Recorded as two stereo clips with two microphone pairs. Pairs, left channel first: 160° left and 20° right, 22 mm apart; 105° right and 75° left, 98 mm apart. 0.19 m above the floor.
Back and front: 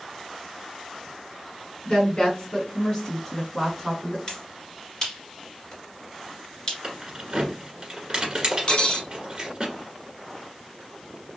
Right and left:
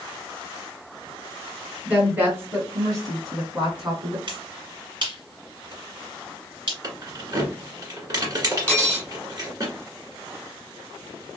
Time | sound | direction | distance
1.9 | a woman speaking | 145° left | 1.7 m
4.3 | a finger snap | 100° left | 2 m
6.8 | keys jangling | 35° left | 1.6 m
8.7 | cutlery clinking | straight behind | 1.2 m